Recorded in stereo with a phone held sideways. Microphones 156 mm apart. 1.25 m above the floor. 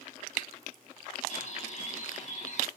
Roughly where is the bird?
Left.